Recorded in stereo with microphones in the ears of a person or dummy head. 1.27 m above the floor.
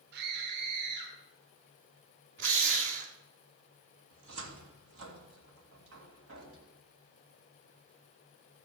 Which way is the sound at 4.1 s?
70° right (ahead or behind).